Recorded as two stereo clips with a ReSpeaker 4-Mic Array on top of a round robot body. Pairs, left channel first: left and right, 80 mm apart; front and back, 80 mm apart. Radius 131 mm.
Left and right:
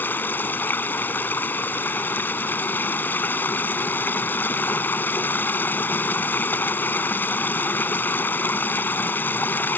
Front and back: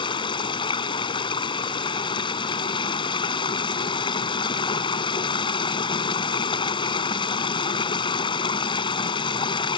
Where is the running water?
20° left.